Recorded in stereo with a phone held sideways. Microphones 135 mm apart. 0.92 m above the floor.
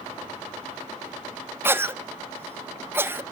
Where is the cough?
15° right (ahead or behind), 0.7 m.